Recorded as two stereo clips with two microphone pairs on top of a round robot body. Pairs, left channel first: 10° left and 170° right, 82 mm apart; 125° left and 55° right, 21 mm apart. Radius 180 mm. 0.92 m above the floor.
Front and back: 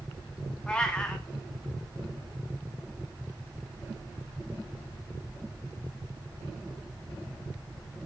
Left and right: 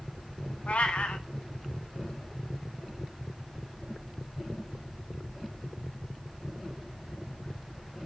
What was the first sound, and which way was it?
A cat meowing, 90° left.